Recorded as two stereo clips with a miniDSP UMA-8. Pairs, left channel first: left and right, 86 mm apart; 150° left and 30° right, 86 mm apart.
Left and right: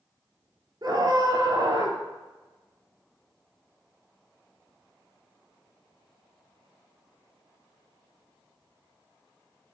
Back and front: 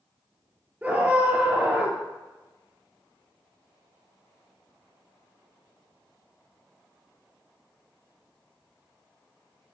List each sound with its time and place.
0.8 s a scream: 95° right, 2.5 m